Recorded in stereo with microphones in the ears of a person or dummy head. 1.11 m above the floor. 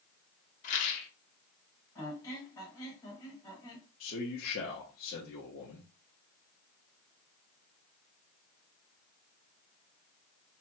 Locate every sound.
0.6 s a rattle: 40° left (ahead or behind), 0.8 m
1.9 s a squeak: 15° left (ahead or behind), 1.3 m
4.0 s a man speaking: 45° left (ahead or behind), 0.8 m